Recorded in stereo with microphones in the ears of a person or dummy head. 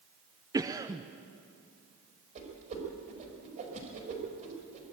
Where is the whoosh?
40° right (ahead or behind), 5 m.